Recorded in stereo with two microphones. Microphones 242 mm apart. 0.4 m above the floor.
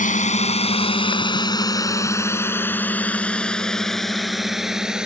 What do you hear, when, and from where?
0.0 s a drone: 30° left (ahead or behind); by 5.1 s 5° right (ahead or behind)